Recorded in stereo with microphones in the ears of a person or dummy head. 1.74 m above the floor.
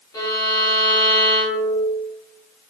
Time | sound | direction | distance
0.1 | a violin | 20° left (ahead or behind) | 1.3 m